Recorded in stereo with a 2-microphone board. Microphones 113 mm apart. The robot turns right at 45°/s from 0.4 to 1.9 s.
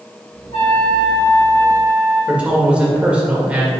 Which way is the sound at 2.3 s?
10° right (ahead or behind).